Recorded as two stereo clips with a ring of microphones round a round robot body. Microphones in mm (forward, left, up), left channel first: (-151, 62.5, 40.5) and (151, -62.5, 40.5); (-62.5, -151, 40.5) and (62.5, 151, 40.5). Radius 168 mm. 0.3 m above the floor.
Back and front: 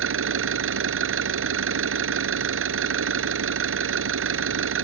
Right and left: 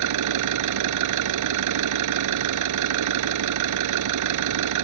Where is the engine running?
30° left.